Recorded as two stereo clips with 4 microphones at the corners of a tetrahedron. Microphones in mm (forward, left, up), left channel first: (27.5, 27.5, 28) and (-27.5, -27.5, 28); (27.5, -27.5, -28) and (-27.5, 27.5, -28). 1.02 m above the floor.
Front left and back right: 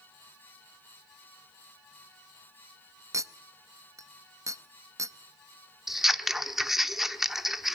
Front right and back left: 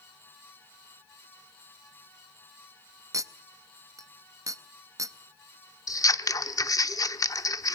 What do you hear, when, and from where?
3.1 s a clink: straight behind, 0.6 m
5.9 s scissors: 50° right, 0.7 m